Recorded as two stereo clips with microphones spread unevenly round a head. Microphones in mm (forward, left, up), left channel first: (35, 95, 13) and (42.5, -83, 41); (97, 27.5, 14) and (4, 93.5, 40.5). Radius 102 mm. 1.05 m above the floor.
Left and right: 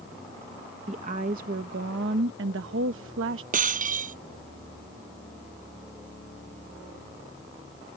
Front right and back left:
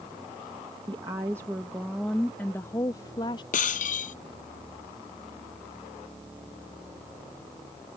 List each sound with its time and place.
0.9 s a woman speaking: 150° right; by 3.4 s 90° right
3.5 s breaking glass: 45° right